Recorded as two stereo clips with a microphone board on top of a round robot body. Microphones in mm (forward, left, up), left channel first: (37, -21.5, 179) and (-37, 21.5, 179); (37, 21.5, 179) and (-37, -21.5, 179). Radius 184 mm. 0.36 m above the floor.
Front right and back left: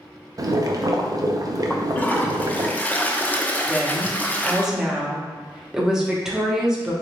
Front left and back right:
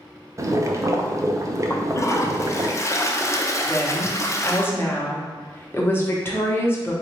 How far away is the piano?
No piano in this recording.